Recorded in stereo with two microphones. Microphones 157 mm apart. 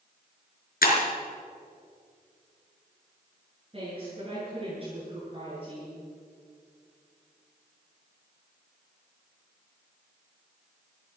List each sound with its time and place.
0.8 s breaking glass: 65° left (ahead or behind), 3.5 m
3.7 s a woman speaking: 35° right (ahead or behind), 8.5 m